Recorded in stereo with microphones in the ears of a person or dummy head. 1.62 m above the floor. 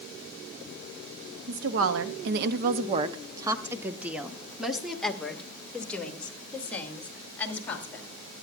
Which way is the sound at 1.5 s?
65° right (ahead or behind).